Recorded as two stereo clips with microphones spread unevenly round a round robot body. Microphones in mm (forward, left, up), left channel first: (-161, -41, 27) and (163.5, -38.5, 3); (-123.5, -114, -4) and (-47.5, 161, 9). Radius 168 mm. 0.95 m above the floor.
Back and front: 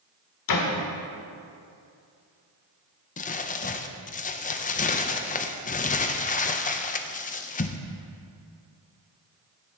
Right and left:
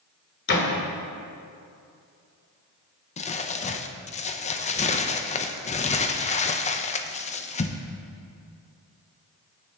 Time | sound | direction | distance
0.5 | a door slam | 155° right | 1.8 m
3.2 | crumpling | 130° right | 0.6 m